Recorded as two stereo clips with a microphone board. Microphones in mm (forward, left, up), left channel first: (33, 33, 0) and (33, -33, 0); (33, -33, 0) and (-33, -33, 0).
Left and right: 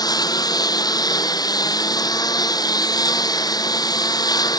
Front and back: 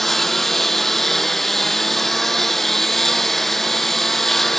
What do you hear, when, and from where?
0.0 s a lawn mower: 85° left